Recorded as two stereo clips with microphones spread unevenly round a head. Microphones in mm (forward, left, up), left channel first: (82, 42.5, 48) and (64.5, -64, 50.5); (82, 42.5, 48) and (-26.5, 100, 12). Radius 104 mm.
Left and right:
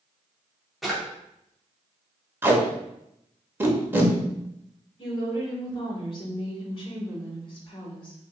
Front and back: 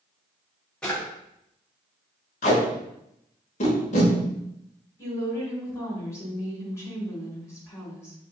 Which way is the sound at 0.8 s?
10° right.